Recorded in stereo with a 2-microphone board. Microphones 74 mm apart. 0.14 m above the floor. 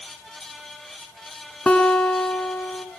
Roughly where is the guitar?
Centre.